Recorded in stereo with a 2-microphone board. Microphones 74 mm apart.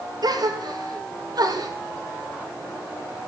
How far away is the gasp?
About 3 m.